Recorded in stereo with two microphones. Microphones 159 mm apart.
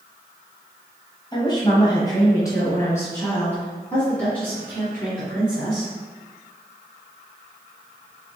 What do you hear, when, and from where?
1.3 s a woman speaking: 30° left (ahead or behind), 1.3 m; by 5.9 s 5° left (ahead or behind), 3 m